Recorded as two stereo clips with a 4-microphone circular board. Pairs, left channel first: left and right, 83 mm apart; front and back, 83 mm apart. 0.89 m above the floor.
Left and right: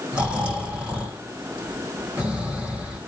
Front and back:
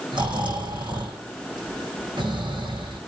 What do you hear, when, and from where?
0.1 s snoring: 160° right, 7 m